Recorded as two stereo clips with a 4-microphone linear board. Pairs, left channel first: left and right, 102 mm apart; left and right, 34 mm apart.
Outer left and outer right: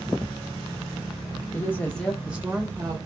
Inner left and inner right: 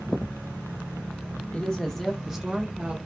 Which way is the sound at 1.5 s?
25° left (ahead or behind).